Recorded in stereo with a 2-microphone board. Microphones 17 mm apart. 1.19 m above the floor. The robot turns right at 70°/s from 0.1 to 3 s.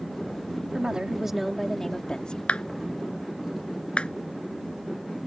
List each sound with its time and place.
0.7 s a woman speaking: 60° right; by 2.4 s 55° left
2.5 s a clap: 75° left (ahead or behind); by 5.3 s 70° left (ahead or behind)